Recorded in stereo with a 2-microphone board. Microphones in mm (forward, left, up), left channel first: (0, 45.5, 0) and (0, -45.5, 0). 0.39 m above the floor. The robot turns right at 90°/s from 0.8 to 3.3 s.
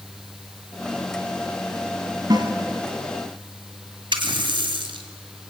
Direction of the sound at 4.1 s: 70° right (ahead or behind).